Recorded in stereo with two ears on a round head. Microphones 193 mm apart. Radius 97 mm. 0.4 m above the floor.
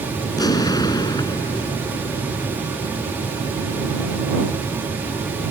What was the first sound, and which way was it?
An explosion, 20° left (ahead or behind).